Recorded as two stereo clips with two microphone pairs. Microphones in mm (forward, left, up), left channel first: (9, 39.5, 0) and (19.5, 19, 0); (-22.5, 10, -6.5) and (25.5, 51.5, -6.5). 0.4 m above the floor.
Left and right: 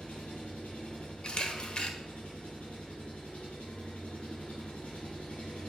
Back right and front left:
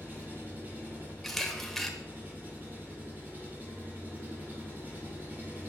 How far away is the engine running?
About 5 m.